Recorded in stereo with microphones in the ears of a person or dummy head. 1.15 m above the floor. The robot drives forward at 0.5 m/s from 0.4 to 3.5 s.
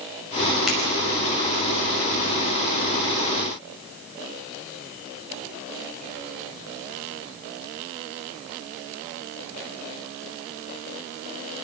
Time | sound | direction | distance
0.7 | a finger snap | 5° right (ahead or behind) | 5.5 m